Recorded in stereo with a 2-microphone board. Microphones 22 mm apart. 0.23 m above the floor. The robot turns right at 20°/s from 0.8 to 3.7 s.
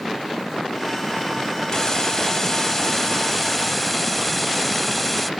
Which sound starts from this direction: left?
A hiss, at 1.7 s.